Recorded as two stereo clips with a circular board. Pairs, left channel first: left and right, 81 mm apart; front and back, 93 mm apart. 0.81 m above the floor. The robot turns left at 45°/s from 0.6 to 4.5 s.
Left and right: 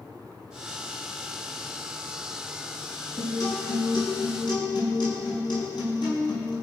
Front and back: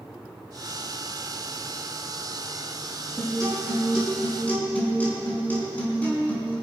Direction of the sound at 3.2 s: 135° left.